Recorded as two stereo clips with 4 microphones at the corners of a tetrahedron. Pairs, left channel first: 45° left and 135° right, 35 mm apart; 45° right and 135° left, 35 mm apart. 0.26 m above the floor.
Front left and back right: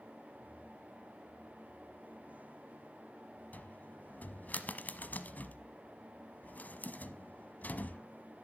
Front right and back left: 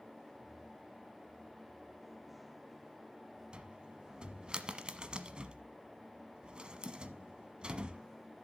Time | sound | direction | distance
3.5 | a cupboard door | 75° left | 1.0 m